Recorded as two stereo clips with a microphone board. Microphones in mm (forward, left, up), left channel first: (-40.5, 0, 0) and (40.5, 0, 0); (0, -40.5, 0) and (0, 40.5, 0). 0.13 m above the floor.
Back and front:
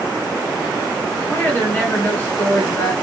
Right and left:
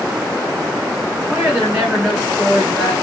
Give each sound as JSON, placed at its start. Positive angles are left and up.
{"t": 1.3, "sound": "a woman speaking", "azimuth_deg": 160, "distance_m": 1.1}